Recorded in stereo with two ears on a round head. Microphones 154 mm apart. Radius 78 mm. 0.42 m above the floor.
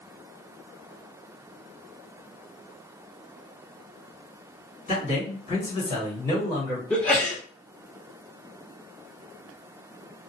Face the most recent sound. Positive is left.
turn(degrees=10)  # may be behind; listen again after turning